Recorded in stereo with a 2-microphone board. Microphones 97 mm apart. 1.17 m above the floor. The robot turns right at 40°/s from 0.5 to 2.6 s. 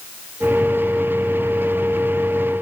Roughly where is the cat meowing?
No cat meowing in this recording.